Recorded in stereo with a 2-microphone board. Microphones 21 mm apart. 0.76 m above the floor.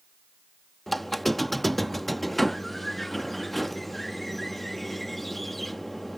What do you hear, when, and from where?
0.9 s a squeak: 5° left (ahead or behind)